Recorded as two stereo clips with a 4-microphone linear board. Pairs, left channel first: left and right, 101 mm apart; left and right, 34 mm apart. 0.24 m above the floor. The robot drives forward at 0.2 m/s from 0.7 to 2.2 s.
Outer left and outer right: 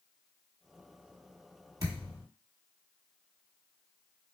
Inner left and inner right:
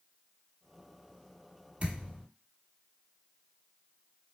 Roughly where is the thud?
Right.